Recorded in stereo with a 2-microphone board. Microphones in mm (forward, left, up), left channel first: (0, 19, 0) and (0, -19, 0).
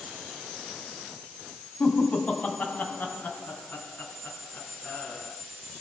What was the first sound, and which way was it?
Laughter, 35° left (ahead or behind).